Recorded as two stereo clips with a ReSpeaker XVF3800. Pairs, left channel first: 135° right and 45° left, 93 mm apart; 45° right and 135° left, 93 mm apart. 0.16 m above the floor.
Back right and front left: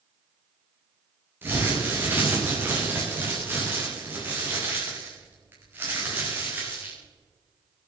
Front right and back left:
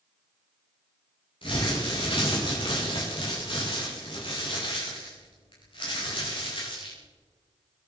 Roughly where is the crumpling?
Ahead.